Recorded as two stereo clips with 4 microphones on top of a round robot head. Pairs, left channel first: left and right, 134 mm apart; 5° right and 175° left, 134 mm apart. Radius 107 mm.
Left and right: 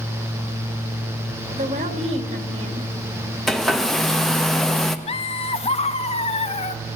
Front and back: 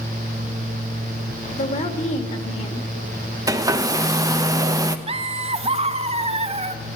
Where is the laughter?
135° left, 0.7 m.